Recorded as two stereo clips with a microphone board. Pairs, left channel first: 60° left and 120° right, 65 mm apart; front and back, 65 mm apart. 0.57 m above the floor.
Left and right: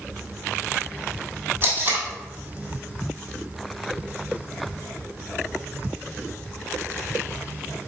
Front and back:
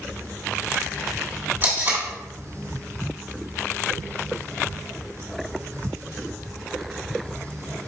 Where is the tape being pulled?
150° right, 1.5 m.